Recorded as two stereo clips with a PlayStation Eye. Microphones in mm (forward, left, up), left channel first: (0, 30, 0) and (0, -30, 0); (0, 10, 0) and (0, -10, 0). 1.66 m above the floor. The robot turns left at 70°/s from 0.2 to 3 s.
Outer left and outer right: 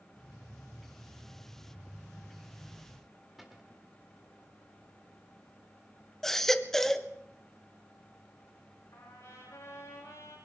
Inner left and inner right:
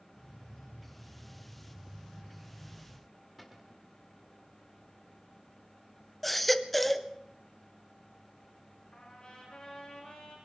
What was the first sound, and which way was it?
A cupboard door, centre (ahead or behind).